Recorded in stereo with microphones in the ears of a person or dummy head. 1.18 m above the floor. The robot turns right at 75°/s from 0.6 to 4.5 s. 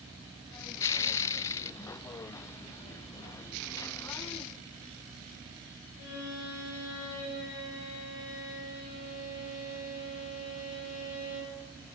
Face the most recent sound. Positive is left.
turn(degrees=85)